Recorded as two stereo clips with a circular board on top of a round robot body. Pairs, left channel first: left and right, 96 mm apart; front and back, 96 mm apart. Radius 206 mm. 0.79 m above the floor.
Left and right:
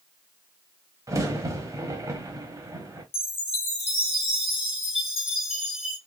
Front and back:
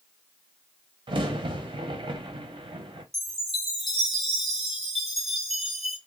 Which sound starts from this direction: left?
A chime, at 3.1 s.